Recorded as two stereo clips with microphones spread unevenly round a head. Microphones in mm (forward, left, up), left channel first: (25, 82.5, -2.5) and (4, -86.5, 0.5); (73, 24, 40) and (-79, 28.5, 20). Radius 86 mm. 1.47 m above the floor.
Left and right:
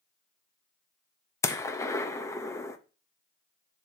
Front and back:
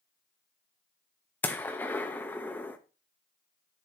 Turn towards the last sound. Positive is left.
turn(degrees=35)